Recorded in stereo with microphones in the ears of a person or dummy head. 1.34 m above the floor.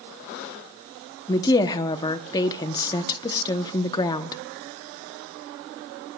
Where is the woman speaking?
25° left (ahead or behind), 0.8 m.